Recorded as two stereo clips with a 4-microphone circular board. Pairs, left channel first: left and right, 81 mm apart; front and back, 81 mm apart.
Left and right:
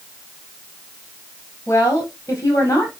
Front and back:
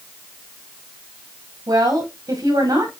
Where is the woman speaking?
145° left, 5.5 m.